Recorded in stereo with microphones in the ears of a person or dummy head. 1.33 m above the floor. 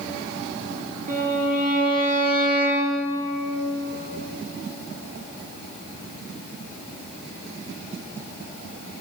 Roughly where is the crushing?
I don't hear crushing.